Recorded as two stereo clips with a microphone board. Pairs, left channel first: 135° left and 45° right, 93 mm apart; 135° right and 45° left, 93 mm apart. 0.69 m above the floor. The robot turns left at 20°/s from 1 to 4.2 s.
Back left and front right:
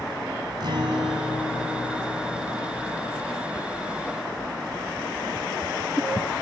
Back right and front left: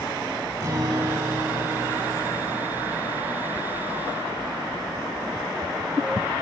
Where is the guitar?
15° right, 4.5 m; by 3.0 s 55° right, 4.5 m.